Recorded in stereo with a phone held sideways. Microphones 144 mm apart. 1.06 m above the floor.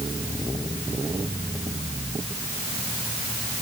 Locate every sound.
Only background noise.